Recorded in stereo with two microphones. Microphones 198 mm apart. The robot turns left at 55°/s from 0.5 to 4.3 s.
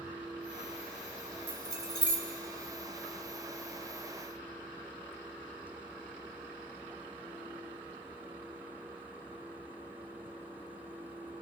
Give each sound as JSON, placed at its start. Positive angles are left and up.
{"t": 1.5, "sound": "keys jangling", "side_deg": -70, "distance_m": 1.7}